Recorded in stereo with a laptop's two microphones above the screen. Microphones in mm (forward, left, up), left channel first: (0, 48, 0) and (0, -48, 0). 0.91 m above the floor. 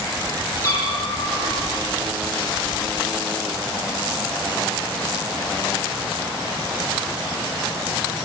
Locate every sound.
0.6 s a cat meowing: 30° left (ahead or behind), 9.5 m